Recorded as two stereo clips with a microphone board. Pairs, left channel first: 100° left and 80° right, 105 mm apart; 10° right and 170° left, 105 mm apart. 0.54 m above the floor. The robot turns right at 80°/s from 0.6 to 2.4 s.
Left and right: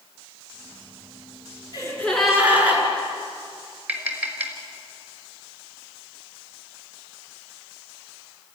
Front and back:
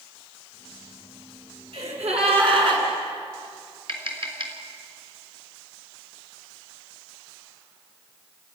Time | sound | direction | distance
1.7 | a gasp | 150° left | 5.5 m
3.9 | tapping | 155° right | 3.5 m